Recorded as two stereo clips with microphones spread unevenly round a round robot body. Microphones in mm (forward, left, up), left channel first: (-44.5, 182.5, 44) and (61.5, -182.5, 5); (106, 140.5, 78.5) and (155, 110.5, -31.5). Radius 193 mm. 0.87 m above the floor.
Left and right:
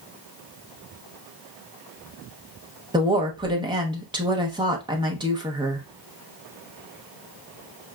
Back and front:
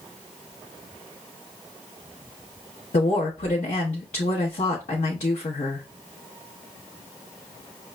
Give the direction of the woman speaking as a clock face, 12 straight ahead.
5 o'clock.